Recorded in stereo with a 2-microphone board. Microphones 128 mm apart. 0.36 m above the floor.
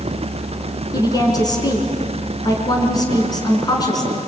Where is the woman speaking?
30° left (ahead or behind), 5 m.